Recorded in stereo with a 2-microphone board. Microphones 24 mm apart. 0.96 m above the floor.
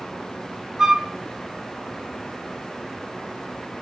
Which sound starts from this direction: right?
A flute, at 0.8 s.